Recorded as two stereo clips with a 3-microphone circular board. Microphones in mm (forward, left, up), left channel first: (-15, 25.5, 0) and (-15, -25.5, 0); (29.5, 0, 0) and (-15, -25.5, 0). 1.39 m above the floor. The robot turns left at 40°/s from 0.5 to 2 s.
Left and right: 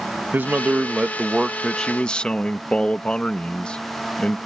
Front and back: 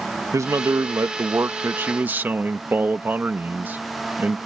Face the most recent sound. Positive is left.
turn(degrees=160)